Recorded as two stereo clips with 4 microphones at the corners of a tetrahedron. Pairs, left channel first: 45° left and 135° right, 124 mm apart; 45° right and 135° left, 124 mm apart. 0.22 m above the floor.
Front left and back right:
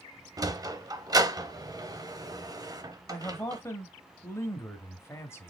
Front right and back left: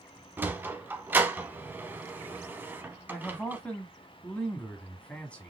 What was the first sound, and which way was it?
A sliding door, 165° right.